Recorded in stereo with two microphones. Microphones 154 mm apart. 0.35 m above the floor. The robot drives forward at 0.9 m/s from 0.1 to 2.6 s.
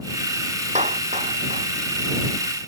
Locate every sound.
0.8 s a clap: 50° right (ahead or behind)